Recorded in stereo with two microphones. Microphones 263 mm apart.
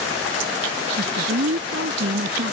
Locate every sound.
1.0 s a woman speaking: 55° right (ahead or behind)